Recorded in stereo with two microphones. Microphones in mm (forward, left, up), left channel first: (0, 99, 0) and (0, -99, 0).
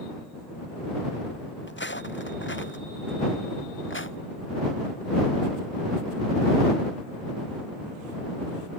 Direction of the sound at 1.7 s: 65° left (ahead or behind).